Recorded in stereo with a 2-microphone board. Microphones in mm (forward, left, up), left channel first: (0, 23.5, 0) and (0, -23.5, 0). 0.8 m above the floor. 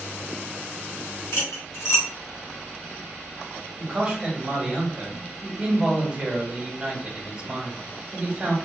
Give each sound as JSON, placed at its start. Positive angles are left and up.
{"t": 1.3, "sound": "cutlery clinking", "side_deg": 80, "distance_m": 1.3}
{"t": 3.8, "sound": "a man speaking", "side_deg": -25, "distance_m": 1.5}